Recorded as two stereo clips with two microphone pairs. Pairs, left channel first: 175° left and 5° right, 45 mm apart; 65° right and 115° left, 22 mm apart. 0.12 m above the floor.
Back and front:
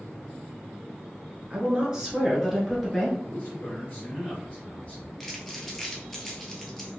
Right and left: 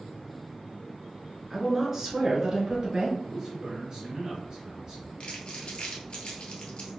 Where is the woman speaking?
35° left, 1.3 m; by 3.1 s 95° left, 1.5 m.